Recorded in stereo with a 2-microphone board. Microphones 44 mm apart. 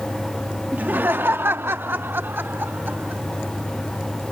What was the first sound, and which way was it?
Laughter, 40° right (ahead or behind).